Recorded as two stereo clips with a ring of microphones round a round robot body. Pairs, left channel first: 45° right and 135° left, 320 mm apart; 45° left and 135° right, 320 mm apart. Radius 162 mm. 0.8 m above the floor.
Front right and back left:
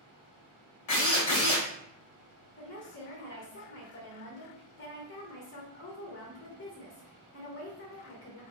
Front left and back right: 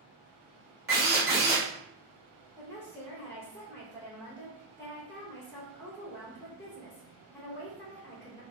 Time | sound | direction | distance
0.9 | a drill | 80° right | 1.9 m
2.6 | a woman speaking | 35° right | 0.9 m